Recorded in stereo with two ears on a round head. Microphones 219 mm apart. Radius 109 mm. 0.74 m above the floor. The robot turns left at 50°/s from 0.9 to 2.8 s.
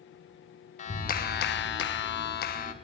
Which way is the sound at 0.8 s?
135° left.